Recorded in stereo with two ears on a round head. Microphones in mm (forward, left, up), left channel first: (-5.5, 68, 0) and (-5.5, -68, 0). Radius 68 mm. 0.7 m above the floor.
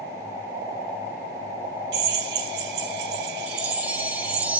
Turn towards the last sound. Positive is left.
turn(degrees=-10)  # may be behind; listen again after turning